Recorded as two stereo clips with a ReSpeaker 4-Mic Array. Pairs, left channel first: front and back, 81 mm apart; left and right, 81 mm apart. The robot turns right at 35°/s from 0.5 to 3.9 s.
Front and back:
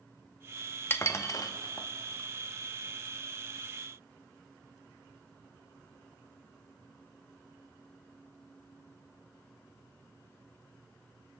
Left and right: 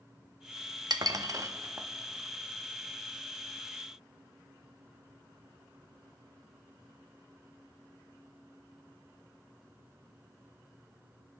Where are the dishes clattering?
60° right, 0.6 m; by 1.9 s 25° right, 0.6 m.